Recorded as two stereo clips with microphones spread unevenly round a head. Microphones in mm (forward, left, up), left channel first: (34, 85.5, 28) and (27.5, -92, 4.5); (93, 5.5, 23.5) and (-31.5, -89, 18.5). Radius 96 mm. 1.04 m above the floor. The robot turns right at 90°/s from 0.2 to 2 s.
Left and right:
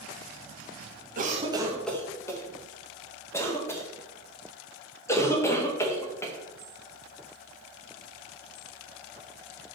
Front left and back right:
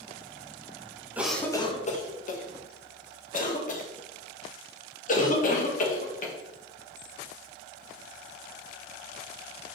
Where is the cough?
65° right, 1.4 m; by 6.3 s 10° left, 1.4 m.